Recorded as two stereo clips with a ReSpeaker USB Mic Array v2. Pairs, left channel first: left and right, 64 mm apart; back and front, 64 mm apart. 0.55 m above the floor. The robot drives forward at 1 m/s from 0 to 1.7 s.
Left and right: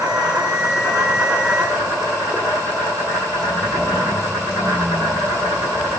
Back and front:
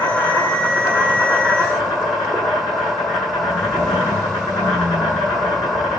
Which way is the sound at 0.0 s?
150° right.